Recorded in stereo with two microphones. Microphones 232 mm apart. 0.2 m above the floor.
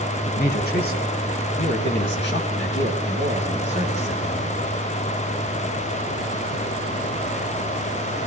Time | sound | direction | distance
0.3 | a man speaking | 40° left (ahead or behind) | 1.6 m